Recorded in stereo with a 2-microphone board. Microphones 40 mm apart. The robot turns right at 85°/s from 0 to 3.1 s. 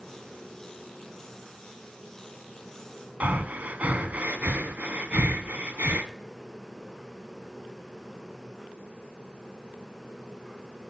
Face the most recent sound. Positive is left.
turn(degrees=-45)  # may be behind; listen again after turning